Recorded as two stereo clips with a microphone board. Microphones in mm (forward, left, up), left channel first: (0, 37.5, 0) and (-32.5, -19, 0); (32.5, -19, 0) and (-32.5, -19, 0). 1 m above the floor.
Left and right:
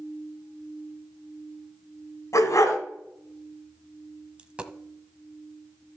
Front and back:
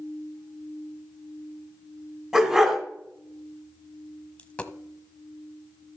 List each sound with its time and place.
2.3 s a dog barking: 100° left, 3 m
4.4 s a dropped coin: 60° right, 1.0 m